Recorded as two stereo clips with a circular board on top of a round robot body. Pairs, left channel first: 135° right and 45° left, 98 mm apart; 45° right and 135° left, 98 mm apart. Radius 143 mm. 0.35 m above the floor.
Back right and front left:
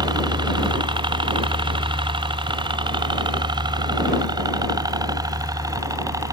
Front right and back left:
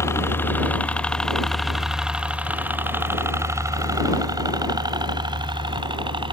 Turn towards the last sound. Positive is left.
turn(degrees=100)